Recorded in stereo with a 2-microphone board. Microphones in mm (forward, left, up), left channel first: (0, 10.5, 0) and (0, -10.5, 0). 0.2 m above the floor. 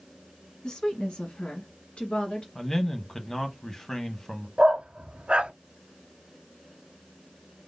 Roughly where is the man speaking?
Centre.